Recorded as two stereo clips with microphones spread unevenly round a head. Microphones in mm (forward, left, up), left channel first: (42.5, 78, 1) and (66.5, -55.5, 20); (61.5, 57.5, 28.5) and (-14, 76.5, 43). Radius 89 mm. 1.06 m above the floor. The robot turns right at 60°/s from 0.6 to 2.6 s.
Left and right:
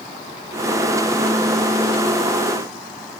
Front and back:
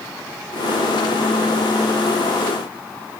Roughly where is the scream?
I don't hear a scream.